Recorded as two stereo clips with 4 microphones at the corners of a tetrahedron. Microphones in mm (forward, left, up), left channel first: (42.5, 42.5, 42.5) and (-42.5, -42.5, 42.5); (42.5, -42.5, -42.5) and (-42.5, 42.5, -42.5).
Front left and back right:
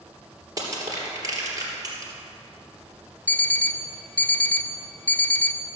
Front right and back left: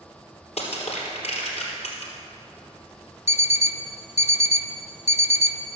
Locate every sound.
0.6 s crushing: 75° right, 3 m
3.3 s an alarm clock: 30° right, 0.5 m